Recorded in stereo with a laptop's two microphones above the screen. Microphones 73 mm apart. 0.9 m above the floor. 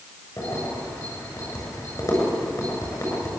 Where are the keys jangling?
45° left (ahead or behind), 7.5 m.